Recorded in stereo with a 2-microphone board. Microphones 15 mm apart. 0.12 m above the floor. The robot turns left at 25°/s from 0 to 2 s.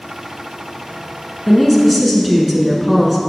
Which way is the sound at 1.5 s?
5° left (ahead or behind).